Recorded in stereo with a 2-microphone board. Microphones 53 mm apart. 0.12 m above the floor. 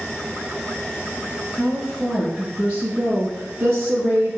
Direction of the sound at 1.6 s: 5° left (ahead or behind).